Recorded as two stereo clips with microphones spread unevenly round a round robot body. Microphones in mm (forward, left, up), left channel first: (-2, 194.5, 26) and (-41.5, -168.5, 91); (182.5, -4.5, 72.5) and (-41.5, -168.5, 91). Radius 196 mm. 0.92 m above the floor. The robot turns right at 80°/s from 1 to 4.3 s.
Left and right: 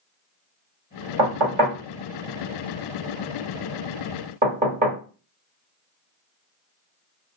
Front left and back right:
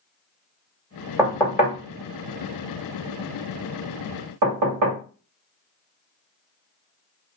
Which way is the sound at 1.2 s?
60° right.